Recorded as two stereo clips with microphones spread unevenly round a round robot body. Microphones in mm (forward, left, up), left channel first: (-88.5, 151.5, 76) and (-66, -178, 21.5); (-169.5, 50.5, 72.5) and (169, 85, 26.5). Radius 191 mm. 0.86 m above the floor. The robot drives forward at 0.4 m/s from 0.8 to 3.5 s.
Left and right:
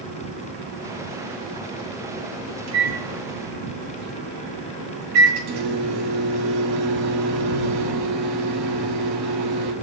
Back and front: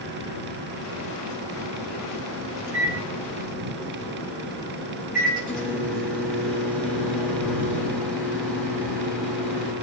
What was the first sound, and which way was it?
A microwave, 80° right.